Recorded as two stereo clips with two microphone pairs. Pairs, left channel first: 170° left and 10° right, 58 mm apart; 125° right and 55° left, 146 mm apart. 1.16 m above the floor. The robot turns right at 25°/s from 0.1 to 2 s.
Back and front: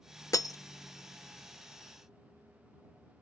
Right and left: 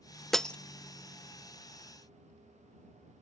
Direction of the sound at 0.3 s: 150° left.